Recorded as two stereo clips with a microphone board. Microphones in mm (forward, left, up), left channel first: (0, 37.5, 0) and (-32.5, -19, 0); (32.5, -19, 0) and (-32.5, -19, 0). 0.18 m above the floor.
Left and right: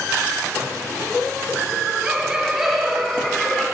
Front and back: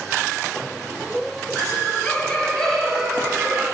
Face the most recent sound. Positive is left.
turn(degrees=120)